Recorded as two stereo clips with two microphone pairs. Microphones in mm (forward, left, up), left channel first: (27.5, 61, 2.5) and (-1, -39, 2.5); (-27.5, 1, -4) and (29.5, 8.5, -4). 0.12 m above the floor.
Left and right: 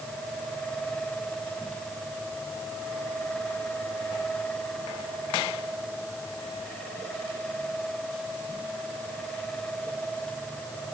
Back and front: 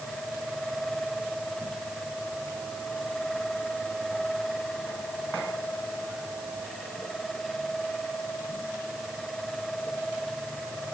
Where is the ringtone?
I don't hear a ringtone.